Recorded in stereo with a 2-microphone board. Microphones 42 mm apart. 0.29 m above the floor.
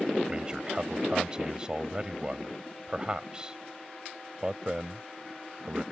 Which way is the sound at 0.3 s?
20° right (ahead or behind).